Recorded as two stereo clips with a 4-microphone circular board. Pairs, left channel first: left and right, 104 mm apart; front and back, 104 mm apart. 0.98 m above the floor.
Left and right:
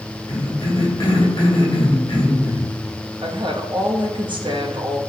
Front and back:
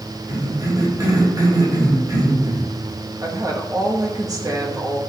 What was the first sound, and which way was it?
A cough, 130° left.